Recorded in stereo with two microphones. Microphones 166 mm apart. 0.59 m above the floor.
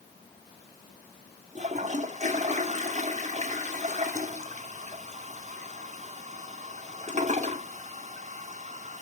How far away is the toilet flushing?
About 1.0 m.